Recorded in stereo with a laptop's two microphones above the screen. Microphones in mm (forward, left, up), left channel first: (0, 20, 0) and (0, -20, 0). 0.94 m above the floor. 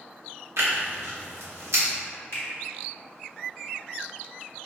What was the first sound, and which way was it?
Tearing paper, 85° right.